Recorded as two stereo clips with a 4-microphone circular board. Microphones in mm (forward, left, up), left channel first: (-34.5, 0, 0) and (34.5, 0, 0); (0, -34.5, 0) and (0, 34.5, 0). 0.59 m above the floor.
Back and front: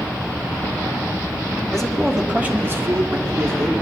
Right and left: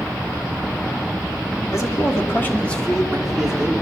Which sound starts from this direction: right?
A man speaking, at 1.7 s.